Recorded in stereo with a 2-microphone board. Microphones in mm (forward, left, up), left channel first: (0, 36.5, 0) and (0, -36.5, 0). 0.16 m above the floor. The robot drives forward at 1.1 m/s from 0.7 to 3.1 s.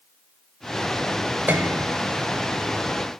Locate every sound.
1.5 s a piano: 30° right (ahead or behind), 0.8 m; by 1.9 s 45° right (ahead or behind), 0.5 m